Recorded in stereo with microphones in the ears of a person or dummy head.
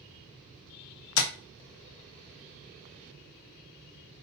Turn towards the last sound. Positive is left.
turn(degrees=80)